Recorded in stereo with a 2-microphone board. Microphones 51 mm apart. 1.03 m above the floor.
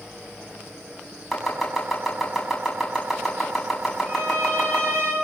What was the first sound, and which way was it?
Chopping, centre (ahead or behind).